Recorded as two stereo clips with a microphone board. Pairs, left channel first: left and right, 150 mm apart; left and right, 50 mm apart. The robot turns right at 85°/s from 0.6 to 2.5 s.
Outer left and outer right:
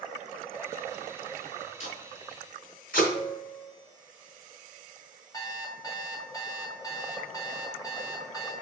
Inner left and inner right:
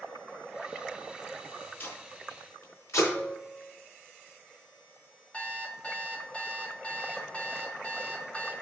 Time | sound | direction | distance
1.8 | tape being pulled | 45° left (ahead or behind) | 4 m
3.1 | a piano | 50° left (ahead or behind) | 3.5 m
5.3 | an alarm clock | 25° left (ahead or behind) | 1.6 m